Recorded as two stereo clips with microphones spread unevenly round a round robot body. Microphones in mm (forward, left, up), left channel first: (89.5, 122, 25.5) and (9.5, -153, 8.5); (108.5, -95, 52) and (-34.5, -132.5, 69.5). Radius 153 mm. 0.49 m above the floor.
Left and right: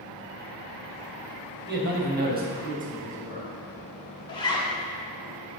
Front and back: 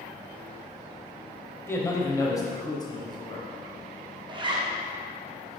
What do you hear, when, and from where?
1.7 s a man speaking: 55° right, 3 m; by 3.5 s 40° right, 3.5 m
4.3 s a zipper: 145° left, 1.1 m